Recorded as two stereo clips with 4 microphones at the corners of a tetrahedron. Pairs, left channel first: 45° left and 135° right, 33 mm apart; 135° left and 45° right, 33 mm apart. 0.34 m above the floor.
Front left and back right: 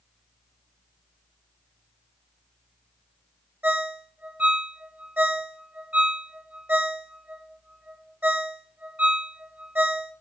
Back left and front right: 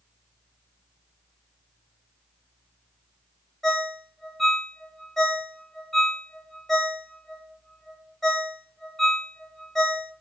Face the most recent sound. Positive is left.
turn(degrees=-145)